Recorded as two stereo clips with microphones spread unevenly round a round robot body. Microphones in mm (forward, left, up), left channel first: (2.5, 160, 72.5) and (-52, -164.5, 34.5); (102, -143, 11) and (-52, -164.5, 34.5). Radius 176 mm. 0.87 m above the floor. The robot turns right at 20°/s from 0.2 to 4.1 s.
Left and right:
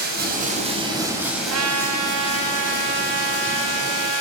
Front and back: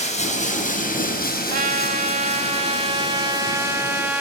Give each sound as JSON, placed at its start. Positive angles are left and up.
{"t": 0.0, "sound": "running water", "azimuth_deg": -35, "distance_m": 4.5}
{"t": 1.5, "sound": "a trumpet", "azimuth_deg": -150, "distance_m": 2.0}